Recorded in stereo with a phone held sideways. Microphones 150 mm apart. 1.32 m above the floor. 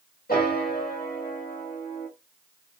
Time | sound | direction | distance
0.3 | a piano | 85° left | 2 m